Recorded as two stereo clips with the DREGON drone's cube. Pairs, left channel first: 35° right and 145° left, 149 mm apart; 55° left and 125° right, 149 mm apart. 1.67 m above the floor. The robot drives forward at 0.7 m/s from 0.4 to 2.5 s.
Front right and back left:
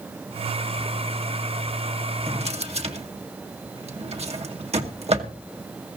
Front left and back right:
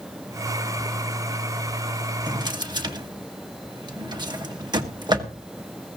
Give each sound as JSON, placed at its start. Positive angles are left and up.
{"t": 2.3, "sound": "a drawer", "azimuth_deg": 180, "distance_m": 1.1}